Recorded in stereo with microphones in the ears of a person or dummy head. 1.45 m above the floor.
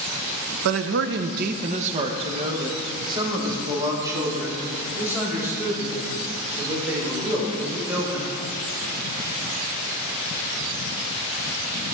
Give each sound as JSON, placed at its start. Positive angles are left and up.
{"t": 0.7, "sound": "a man speaking", "side_deg": -70, "distance_m": 0.7}